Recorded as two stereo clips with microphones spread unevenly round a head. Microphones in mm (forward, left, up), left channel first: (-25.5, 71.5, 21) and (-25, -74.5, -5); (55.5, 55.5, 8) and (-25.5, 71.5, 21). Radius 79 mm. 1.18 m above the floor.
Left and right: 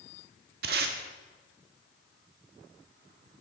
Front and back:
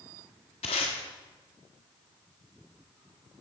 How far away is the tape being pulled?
About 1.1 m.